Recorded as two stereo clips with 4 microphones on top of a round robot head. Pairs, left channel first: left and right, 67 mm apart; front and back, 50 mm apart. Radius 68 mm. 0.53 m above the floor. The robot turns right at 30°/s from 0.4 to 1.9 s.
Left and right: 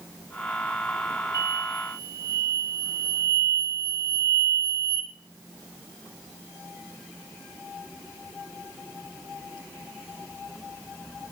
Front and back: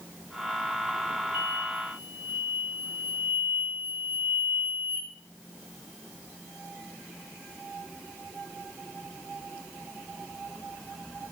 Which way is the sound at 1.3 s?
125° right.